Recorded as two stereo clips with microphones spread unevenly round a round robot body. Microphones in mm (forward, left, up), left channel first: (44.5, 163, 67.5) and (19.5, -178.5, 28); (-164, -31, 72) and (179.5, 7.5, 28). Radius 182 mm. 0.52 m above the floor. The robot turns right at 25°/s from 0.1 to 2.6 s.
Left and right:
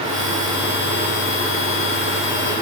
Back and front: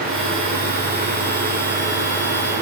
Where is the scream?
No scream in this recording.